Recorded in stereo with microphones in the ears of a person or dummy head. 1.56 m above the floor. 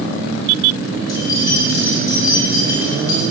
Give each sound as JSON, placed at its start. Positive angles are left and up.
{"t": 1.1, "sound": "keys jangling", "side_deg": 20, "distance_m": 2.5}